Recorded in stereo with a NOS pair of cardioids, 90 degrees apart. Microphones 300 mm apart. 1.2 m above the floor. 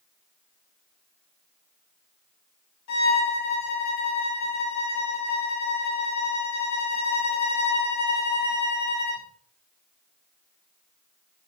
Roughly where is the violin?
Ahead left.